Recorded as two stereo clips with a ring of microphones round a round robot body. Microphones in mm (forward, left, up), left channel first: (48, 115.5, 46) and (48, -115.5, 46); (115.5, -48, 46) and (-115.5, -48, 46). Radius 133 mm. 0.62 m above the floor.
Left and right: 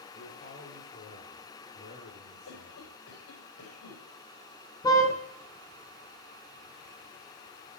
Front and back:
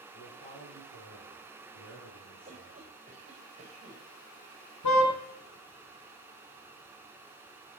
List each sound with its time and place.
0.1 s a man speaking: 35° left, 9.5 m; by 2.9 s 30° left, 8.5 m
2.5 s a cough: 115° left, 4 m
4.8 s a car horn: 15° left, 3.5 m